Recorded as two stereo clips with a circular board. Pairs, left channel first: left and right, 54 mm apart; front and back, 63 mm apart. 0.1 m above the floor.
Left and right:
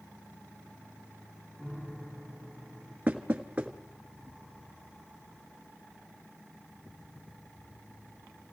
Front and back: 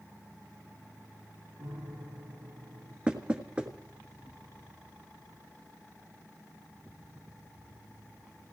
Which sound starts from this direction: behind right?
Knocking, at 3.1 s.